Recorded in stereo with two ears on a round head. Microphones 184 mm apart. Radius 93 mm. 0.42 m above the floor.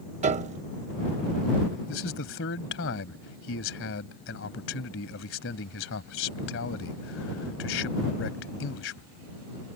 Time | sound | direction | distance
0.2 | a piano | 35° right (ahead or behind) | ?
1.9 | a man speaking | 65° left (ahead or behind) | ?